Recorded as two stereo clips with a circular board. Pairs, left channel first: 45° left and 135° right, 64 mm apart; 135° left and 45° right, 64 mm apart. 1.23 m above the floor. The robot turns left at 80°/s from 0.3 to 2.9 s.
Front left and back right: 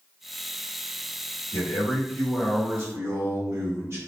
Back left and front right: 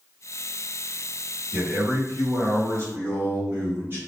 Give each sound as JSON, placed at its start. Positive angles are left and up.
{"t": 1.5, "sound": "a man speaking", "azimuth_deg": 20, "distance_m": 1.5}